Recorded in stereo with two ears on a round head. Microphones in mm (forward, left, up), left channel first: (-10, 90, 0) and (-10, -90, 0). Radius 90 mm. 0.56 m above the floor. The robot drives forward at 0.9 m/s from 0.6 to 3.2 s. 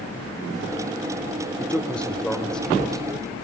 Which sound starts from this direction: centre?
A man speaking, at 1.6 s.